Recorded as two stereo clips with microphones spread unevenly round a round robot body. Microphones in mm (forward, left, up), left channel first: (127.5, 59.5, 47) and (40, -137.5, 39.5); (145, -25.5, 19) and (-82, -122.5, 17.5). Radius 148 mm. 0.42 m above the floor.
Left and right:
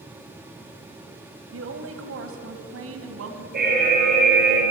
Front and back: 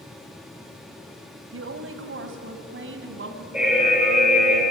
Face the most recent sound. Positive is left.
turn(degrees=-70)